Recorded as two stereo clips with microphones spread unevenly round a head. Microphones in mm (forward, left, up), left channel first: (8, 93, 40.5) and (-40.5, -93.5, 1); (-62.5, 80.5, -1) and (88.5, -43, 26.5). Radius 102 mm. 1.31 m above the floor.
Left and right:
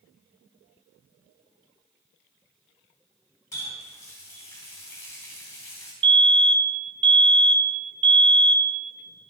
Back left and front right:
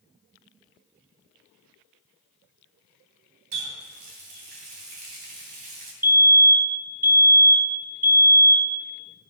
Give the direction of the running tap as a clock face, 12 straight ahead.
12 o'clock.